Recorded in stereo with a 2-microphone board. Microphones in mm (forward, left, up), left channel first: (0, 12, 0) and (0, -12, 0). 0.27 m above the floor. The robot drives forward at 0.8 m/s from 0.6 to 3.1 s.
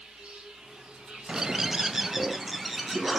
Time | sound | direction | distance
0.0 | an insect | 65° right (ahead or behind) | 4.5 m
1.3 | a bird | 25° right (ahead or behind) | 0.5 m